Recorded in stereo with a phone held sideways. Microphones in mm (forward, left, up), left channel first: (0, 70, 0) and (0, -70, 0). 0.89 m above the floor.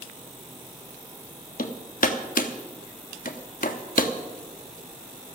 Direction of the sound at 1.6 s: 75° left (ahead or behind).